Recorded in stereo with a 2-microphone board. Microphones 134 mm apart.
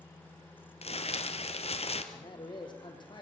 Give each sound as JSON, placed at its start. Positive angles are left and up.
{"t": 0.8, "sound": "crumpling", "side_deg": 50, "distance_m": 1.5}
{"t": 2.1, "sound": "a man speaking", "side_deg": 35, "distance_m": 3.0}